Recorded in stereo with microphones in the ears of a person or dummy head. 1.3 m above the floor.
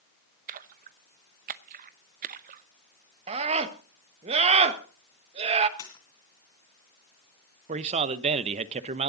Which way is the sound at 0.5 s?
45° right (ahead or behind).